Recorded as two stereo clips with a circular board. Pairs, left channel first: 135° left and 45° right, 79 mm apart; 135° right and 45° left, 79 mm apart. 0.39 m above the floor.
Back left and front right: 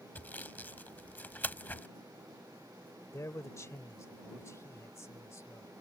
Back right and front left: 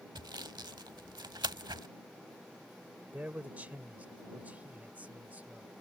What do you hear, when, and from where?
0.1 s sawing: 70° left
3.1 s a man speaking: 105° left